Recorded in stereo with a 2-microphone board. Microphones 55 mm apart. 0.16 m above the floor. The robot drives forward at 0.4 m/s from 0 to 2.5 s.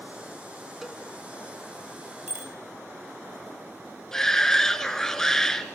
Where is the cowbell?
5° right (ahead or behind), 1.7 m.